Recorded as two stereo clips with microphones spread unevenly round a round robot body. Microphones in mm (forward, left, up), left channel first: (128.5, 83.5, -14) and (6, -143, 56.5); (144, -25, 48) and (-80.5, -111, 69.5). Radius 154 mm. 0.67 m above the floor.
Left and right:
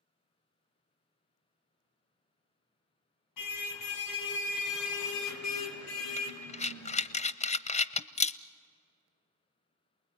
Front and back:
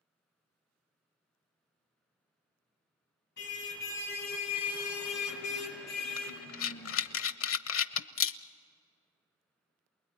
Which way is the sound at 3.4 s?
75° left.